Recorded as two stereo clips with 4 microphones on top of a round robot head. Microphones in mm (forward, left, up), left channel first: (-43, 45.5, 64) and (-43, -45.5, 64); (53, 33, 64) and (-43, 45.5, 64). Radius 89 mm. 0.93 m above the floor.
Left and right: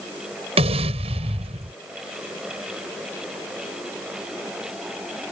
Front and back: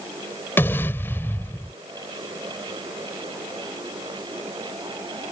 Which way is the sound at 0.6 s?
80° right.